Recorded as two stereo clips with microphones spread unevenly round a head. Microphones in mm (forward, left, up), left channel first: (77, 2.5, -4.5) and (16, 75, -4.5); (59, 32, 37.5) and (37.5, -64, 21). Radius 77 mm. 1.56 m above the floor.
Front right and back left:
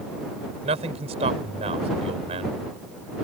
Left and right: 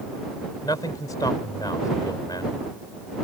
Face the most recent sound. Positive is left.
turn(degrees=145)